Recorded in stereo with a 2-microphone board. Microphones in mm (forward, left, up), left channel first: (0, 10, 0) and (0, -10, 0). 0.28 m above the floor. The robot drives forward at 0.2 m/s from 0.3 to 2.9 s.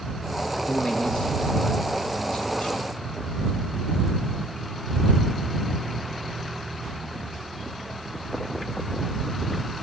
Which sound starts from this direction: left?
A man speaking, at 0.7 s.